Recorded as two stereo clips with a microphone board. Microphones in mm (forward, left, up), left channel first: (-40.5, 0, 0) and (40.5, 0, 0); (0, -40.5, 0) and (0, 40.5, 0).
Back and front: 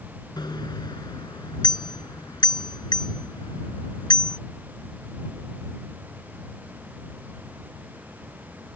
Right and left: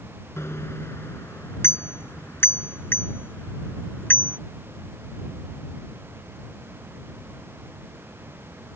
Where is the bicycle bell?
150° right; by 4.4 s 155° right.